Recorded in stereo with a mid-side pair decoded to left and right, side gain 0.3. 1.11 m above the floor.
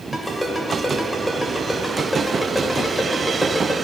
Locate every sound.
0.1 s a ringtone: 25° left, 2 m